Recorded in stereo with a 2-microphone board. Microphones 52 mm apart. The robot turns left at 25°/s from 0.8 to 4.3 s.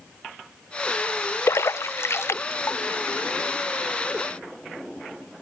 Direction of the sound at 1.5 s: 60° left (ahead or behind).